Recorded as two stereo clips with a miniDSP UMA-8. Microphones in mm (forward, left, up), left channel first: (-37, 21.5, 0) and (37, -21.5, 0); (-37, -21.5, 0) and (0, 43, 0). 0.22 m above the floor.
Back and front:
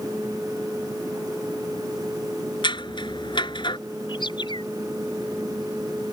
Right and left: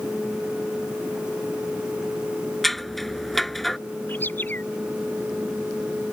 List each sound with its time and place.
2.6 s scissors: 155° left
4.1 s a bird: 175° left